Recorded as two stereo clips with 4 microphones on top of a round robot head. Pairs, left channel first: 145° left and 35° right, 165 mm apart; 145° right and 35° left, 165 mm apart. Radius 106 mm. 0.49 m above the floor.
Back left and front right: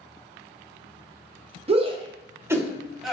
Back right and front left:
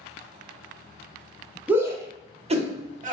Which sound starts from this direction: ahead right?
A shout, at 1.7 s.